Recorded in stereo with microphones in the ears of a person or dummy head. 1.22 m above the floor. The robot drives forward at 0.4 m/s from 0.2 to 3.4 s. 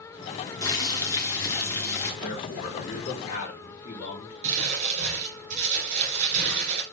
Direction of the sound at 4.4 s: 45° right (ahead or behind).